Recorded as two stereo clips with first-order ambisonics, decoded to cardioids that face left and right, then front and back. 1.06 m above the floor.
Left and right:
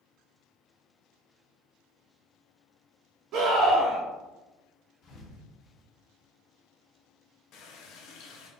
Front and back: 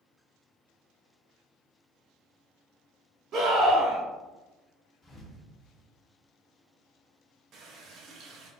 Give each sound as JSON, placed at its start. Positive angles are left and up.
{"t": 3.3, "sound": "a scream", "azimuth_deg": -130, "distance_m": 1.4}
{"t": 5.0, "sound": "a thud", "azimuth_deg": 60, "distance_m": 0.7}
{"t": 7.5, "sound": "a running tap", "azimuth_deg": 130, "distance_m": 0.6}